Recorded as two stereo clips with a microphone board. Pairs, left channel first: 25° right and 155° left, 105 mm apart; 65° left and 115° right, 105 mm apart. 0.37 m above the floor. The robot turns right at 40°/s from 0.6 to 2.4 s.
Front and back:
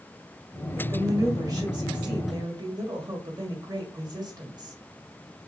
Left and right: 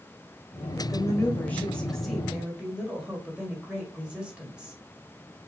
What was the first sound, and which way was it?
A woman speaking, 105° left.